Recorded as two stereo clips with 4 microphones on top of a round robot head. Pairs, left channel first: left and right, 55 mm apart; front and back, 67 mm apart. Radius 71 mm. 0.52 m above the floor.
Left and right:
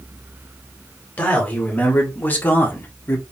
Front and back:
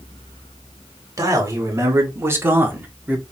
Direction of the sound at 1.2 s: 150° left.